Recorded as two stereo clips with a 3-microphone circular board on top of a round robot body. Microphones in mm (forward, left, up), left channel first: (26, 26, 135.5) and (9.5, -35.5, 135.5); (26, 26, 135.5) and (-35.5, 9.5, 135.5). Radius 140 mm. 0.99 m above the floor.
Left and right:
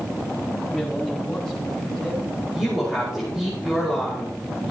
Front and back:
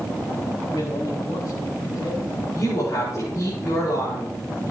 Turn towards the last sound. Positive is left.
turn(degrees=-20)